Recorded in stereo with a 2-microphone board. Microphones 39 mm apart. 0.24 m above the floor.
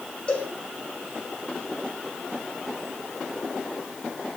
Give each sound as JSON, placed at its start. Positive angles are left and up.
{"t": 0.3, "sound": "a cowbell", "side_deg": 25, "distance_m": 6.5}